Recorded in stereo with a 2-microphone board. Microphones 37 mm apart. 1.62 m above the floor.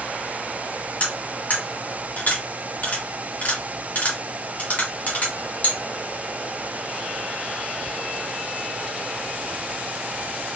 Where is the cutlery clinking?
40° left (ahead or behind), 2 m.